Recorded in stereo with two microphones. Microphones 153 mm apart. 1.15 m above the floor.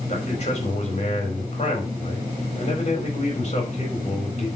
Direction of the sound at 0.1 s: 45° left (ahead or behind).